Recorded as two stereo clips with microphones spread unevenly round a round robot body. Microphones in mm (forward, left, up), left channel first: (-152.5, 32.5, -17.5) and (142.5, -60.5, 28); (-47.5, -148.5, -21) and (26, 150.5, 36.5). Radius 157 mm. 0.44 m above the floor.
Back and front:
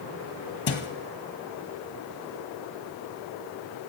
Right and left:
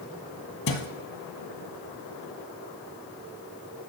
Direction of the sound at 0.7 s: 150° right.